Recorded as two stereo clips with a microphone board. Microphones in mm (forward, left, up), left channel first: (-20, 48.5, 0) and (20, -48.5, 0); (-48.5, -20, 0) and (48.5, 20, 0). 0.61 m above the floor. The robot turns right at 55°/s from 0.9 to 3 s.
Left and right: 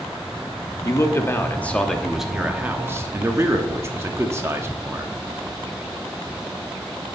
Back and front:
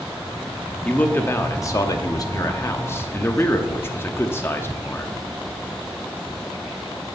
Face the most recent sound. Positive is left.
turn(degrees=-110)